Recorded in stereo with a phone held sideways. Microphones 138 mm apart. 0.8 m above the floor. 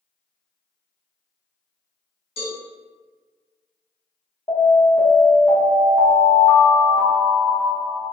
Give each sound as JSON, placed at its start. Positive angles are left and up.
{"t": 2.4, "sound": "a cowbell", "side_deg": 45, "distance_m": 1.6}
{"t": 4.5, "sound": "an alarm", "side_deg": 30, "distance_m": 1.0}